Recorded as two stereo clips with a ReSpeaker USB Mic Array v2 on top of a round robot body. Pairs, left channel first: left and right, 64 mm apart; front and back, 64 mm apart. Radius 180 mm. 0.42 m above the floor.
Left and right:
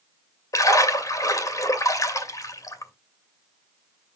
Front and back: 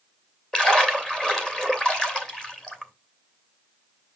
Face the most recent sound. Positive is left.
turn(degrees=75)